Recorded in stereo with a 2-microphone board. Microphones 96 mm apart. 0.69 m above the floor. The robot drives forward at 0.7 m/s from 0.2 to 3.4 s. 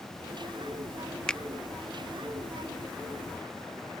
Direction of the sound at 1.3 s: 10° left (ahead or behind).